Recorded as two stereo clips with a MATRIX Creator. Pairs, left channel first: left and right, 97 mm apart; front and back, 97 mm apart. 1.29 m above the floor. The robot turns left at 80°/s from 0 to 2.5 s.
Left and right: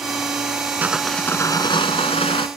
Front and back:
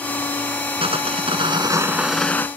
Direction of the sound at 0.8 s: 160° right.